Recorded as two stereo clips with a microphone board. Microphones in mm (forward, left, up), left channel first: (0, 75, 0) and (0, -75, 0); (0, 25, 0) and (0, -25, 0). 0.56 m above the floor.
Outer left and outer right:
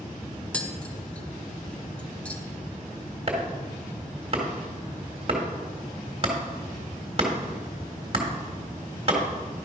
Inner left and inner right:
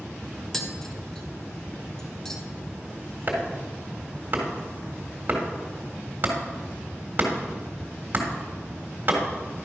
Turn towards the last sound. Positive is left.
turn(degrees=-40)  # may be behind; listen again after turning